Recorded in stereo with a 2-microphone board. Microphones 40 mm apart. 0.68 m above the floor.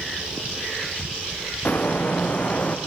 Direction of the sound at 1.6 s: 50° left (ahead or behind).